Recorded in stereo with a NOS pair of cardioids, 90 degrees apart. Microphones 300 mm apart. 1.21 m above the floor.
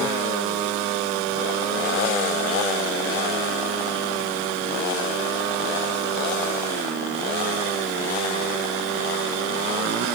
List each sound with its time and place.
Only background noise.